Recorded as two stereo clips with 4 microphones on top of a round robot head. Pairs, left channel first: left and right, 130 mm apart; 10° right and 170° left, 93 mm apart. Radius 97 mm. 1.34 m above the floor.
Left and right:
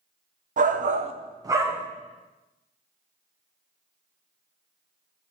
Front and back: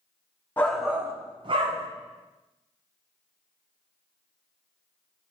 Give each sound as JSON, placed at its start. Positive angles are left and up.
{"t": 0.6, "sound": "a shout", "azimuth_deg": -80, "distance_m": 1.0}